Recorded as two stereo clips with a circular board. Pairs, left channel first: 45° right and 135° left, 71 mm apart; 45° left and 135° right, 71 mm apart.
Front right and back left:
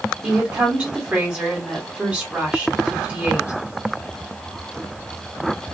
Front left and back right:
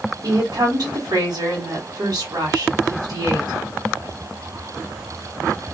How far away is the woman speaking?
About 1.4 m.